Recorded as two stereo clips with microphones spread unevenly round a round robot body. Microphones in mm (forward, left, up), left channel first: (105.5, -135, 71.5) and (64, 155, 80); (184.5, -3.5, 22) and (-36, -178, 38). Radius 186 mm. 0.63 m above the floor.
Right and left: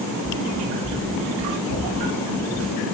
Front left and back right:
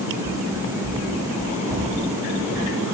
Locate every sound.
0.2 s running footsteps: 45° right, 6.5 m; by 2.8 s 35° right, 5.5 m